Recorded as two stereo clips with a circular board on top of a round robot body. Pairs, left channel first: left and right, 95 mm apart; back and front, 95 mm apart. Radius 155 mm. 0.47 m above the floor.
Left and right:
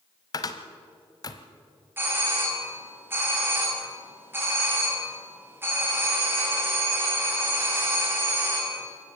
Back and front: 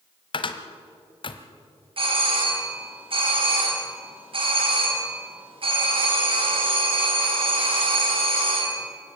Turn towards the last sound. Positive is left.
turn(degrees=-25)